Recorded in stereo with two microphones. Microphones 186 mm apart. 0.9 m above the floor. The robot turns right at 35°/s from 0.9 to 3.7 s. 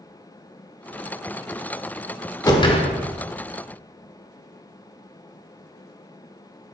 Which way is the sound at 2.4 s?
20° left (ahead or behind).